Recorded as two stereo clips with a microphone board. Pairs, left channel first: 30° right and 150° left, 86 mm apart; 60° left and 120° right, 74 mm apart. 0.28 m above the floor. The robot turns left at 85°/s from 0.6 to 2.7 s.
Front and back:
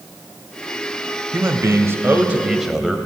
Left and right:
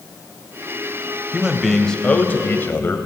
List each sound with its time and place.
1.3 s a man speaking: straight behind, 1.0 m; by 3.0 s 65° left, 1.0 m